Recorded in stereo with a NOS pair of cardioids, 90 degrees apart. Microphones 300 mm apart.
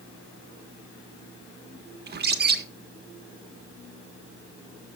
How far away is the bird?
About 1.5 m.